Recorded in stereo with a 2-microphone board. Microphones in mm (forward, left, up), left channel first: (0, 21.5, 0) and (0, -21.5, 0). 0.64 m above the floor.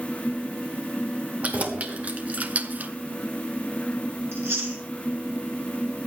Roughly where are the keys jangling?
Right.